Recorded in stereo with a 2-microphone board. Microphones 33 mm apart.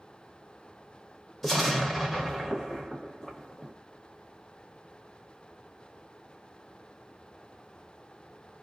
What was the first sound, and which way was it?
An explosion, 5° left (ahead or behind).